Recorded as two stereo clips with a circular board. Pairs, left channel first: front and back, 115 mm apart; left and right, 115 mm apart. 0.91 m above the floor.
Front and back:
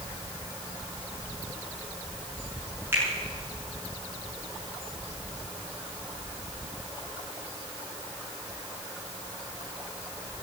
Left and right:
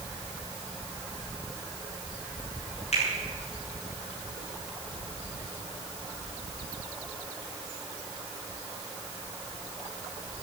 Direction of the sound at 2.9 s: 110° left.